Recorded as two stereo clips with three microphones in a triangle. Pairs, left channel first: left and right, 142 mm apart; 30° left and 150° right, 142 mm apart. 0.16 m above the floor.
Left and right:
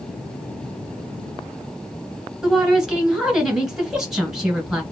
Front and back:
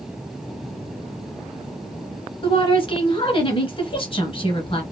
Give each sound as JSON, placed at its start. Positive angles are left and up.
{"t": 2.4, "sound": "a woman speaking", "azimuth_deg": -5, "distance_m": 1.5}